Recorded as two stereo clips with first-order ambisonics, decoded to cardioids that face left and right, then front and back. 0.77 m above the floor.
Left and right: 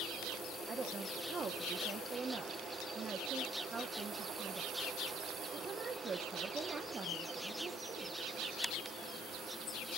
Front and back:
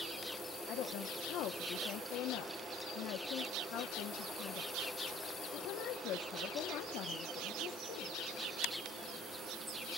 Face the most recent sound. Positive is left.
turn(degrees=-25)